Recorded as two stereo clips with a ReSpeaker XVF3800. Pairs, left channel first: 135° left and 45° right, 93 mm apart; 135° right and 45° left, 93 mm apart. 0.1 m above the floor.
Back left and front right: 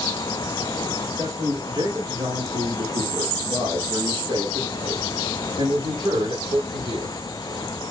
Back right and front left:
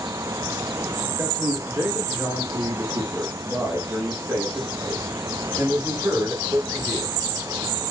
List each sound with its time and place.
1.2 s a man speaking: 15° right, 5 m; by 7.2 s 10° right, 9.5 m